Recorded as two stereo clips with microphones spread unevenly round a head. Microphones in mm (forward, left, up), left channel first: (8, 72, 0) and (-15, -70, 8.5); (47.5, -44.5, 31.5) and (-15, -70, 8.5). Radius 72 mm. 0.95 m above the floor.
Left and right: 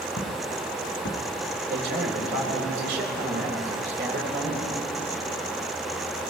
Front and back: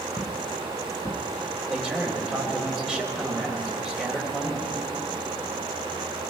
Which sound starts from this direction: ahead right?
A man speaking, at 1.7 s.